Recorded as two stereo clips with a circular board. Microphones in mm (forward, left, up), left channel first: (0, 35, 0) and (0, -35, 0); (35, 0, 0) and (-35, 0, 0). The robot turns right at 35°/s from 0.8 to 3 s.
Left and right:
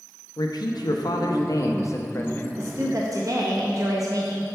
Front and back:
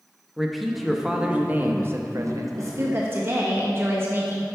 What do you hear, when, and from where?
0.4 s a man speaking: 90° left, 0.6 m; by 2.6 s 155° left, 0.6 m
2.6 s a woman speaking: 140° right, 0.6 m; by 4.5 s 125° right, 0.6 m